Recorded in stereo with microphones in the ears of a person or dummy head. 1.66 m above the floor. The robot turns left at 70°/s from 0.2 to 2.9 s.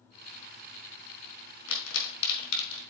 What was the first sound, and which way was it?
A pop, 80° left.